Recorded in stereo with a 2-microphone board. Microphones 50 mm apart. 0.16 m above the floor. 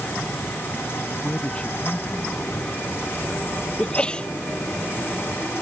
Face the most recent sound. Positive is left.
turn(degrees=20)  # may be behind; listen again after turning